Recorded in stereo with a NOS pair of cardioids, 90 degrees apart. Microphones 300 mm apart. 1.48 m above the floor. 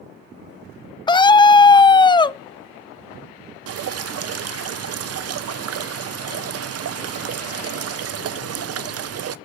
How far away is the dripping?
About 0.8 m.